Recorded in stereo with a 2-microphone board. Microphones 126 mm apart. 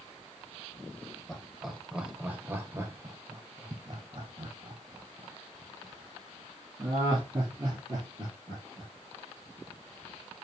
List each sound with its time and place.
1.3 s laughter: 5° left (ahead or behind), 1.2 m; by 8.9 s 30° right (ahead or behind), 3.5 m